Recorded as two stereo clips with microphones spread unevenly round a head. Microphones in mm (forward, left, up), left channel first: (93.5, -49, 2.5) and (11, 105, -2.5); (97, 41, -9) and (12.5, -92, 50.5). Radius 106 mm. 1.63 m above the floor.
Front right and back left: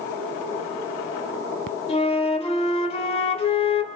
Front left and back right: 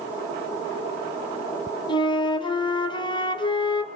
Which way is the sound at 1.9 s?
15° right.